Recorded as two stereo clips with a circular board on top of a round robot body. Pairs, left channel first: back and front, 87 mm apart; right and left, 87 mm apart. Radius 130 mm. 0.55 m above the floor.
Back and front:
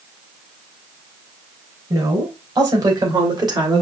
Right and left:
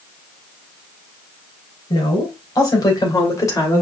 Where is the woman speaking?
50° right, 3 m; by 3.8 s 35° right, 2 m.